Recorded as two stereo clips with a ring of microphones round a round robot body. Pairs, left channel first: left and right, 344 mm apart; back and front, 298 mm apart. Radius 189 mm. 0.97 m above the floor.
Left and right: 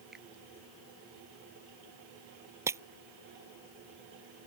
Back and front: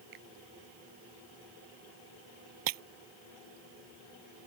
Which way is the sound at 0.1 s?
Straight ahead.